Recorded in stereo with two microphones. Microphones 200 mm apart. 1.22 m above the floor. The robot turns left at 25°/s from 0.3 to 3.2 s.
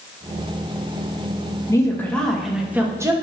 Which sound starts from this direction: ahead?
A woman speaking, at 1.7 s.